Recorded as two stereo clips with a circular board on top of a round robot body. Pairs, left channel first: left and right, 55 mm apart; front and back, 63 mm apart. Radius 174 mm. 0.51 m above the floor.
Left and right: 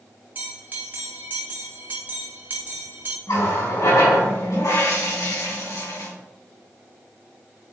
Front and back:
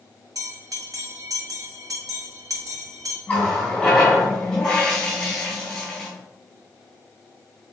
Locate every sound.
0.3 s a bell: 145° right, 0.9 m
3.3 s a running tap: 85° left, 3.5 m